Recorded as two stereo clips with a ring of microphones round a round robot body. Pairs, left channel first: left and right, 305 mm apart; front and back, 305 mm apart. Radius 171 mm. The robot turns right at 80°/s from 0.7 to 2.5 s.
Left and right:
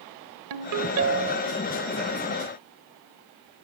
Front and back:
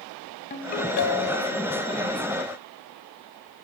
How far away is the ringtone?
About 1.5 m.